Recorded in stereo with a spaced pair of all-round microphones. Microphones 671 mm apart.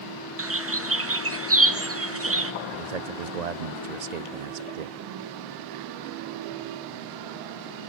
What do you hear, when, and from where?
0.4 s a bird: 20° right (ahead or behind), 0.8 m
2.7 s a man speaking: 70° right (ahead or behind), 0.8 m